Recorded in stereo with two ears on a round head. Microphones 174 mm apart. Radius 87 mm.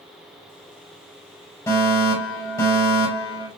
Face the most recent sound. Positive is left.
turn(degrees=15)  # may be behind; listen again after turning